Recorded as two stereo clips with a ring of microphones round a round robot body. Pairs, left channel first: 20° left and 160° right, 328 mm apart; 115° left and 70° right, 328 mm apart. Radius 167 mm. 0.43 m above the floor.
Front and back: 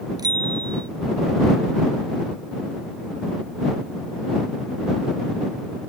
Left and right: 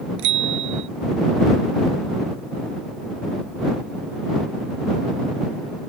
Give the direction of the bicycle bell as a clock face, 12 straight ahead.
3 o'clock.